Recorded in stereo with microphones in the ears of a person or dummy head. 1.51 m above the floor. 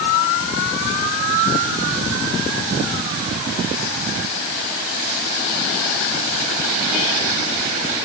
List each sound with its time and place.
Only background noise.